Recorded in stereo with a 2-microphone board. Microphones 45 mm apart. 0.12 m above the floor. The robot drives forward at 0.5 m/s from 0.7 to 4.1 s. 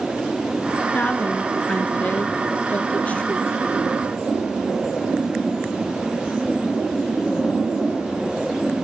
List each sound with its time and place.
0.9 s a woman speaking: 35° left (ahead or behind), 1.7 m; by 3.8 s 25° left (ahead or behind), 2 m